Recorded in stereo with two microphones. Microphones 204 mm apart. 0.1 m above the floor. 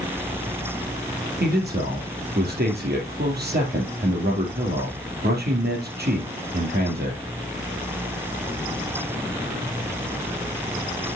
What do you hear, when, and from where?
1.4 s a man speaking: 55° right (ahead or behind), 3 m